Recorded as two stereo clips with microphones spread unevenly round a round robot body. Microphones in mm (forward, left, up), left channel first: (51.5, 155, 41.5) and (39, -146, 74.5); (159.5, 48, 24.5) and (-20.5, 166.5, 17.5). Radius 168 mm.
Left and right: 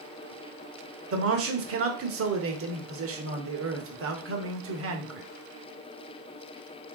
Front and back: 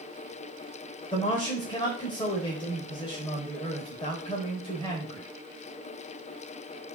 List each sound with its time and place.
1.1 s a man speaking: 95° right, 1.0 m